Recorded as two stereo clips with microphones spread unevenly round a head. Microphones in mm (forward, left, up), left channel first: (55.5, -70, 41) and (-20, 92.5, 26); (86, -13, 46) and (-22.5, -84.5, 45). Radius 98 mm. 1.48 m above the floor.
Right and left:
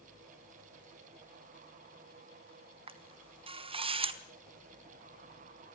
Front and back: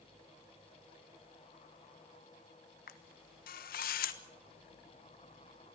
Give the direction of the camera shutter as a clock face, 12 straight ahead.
10 o'clock.